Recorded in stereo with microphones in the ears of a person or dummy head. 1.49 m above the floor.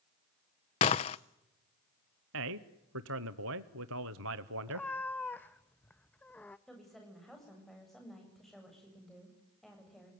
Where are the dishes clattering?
25° left (ahead or behind), 0.5 m.